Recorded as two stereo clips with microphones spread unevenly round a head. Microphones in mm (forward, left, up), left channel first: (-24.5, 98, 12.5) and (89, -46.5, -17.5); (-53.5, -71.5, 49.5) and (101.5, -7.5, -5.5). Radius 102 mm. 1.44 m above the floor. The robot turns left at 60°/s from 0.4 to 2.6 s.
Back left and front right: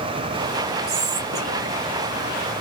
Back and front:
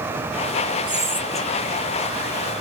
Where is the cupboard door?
I don't hear a cupboard door.